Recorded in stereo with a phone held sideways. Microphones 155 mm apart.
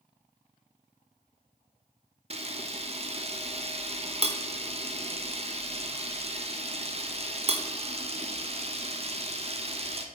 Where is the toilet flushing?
I don't hear a toilet flushing.